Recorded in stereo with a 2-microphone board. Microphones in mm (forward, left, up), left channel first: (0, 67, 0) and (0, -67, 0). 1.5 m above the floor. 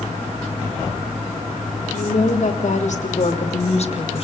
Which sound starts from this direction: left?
A woman speaking, at 1.9 s.